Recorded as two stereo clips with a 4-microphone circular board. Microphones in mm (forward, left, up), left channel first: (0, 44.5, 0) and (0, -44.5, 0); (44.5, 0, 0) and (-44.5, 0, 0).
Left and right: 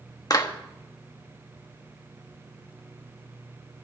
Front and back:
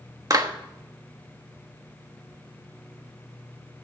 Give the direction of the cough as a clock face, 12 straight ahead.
No cough in this recording.